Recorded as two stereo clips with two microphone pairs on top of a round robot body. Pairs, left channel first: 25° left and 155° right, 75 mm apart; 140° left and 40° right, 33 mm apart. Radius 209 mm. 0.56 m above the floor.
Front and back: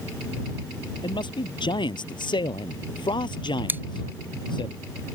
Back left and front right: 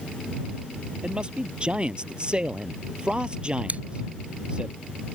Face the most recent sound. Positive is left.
turn(degrees=-90)